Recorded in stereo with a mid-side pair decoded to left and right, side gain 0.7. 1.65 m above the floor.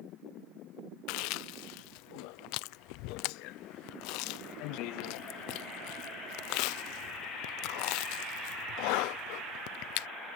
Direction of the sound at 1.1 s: 70° left.